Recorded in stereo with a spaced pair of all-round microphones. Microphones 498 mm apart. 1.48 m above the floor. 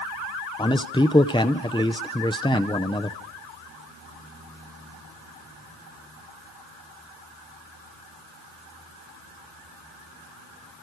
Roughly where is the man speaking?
Centre.